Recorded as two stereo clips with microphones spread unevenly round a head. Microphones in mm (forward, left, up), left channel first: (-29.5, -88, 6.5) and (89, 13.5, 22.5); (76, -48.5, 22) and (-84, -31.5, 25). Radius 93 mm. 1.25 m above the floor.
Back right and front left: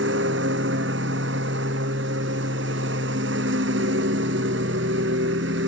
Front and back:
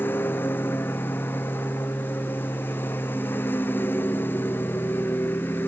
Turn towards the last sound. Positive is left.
turn(degrees=75)